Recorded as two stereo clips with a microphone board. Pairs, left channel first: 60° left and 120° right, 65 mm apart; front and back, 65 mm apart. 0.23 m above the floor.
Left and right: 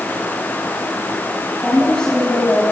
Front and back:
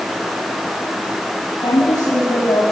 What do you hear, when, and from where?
1.6 s a woman speaking: 15° right, 4.5 m; by 2.6 s 20° right, 5 m